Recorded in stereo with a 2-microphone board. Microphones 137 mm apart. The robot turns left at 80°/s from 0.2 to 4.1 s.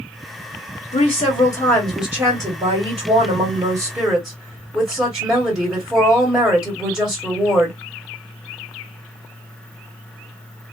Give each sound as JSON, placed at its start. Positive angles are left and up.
{"t": 0.9, "sound": "a woman speaking", "azimuth_deg": 85, "distance_m": 1.4}